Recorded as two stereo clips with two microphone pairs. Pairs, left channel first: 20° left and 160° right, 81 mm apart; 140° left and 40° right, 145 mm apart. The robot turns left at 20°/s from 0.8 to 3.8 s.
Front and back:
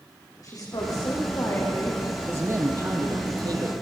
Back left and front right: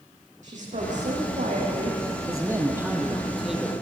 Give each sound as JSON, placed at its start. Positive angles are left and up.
{"t": 0.4, "sound": "a woman speaking", "azimuth_deg": -15, "distance_m": 8.0}
{"t": 2.3, "sound": "a man speaking", "azimuth_deg": -105, "distance_m": 3.5}